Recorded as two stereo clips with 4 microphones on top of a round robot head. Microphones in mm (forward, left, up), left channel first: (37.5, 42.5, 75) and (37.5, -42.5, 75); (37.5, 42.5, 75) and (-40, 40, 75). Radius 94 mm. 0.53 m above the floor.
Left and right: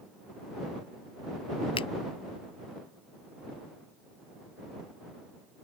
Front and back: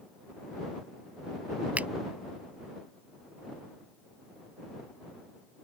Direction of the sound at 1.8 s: 110° left.